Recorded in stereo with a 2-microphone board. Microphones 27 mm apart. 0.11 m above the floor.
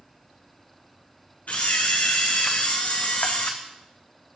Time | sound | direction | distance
1.5 | a camera shutter | 70° left (ahead or behind) | 1.6 m